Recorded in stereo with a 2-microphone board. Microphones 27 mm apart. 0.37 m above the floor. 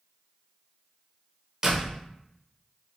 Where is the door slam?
25° right (ahead or behind), 0.7 m.